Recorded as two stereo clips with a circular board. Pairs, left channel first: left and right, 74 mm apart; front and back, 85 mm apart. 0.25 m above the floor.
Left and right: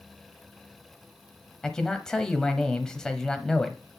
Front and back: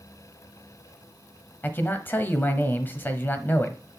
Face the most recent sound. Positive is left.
turn(degrees=20)